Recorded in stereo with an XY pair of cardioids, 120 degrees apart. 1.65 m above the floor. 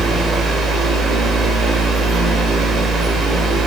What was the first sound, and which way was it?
A fan, 55° right.